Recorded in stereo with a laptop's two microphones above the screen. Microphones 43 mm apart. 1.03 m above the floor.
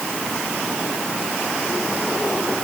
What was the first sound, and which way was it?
Only background noise.